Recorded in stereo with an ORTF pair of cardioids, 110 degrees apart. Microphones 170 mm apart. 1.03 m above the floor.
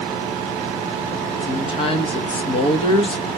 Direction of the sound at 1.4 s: 35° left.